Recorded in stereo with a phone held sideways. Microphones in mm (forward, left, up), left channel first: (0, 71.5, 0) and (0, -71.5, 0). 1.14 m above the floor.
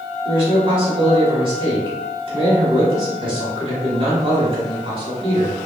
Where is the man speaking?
40° right (ahead or behind), 1.3 m.